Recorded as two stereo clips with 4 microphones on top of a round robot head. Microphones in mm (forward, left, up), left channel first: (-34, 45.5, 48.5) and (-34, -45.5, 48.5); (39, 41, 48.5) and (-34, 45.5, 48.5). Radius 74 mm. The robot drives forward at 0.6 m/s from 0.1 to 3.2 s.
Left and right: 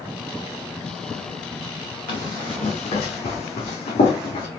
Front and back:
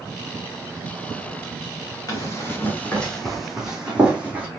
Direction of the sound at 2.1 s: 40° left.